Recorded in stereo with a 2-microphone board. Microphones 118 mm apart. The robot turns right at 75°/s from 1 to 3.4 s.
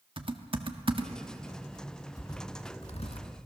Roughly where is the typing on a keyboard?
Right.